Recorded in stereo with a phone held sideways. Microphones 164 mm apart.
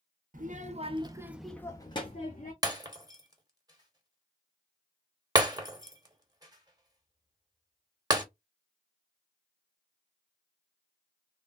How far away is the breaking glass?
About 0.9 m.